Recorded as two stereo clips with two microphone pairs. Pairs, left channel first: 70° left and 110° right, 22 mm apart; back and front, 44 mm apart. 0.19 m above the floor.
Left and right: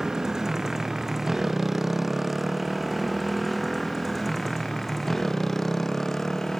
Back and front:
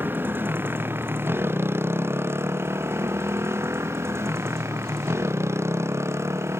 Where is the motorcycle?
40° right; by 6.6 s straight ahead.